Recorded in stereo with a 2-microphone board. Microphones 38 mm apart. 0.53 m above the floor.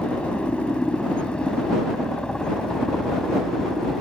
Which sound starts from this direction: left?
A helicopter, at 0.0 s.